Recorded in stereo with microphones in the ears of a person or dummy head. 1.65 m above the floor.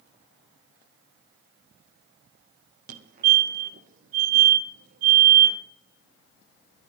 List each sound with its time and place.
2.9 s a fire alarm: 45° right (ahead or behind), 1.6 m